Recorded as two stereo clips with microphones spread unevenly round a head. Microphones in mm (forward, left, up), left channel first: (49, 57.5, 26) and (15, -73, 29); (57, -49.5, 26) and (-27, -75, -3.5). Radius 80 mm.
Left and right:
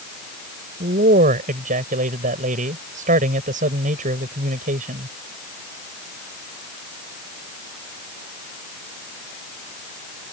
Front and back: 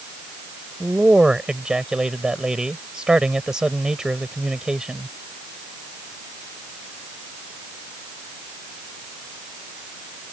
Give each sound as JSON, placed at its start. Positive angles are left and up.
{"t": 0.8, "sound": "a man speaking", "azimuth_deg": -80}